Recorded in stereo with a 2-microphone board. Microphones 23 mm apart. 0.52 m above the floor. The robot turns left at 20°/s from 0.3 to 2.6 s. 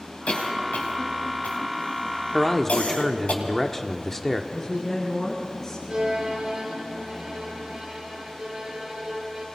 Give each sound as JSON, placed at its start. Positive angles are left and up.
{"t": 0.3, "sound": "a cough", "side_deg": 55, "distance_m": 4.0}
{"t": 2.3, "sound": "a man speaking", "side_deg": 25, "distance_m": 1.2}
{"t": 4.5, "sound": "a woman speaking", "side_deg": 30, "distance_m": 6.5}
{"t": 5.9, "sound": "a violin", "side_deg": -35, "distance_m": 7.0}